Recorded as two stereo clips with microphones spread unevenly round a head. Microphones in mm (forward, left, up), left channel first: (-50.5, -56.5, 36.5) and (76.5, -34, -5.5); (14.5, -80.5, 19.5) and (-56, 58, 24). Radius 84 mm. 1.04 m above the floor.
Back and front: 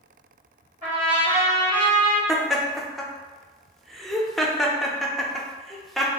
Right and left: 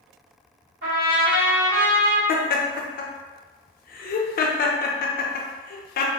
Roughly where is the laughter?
Right.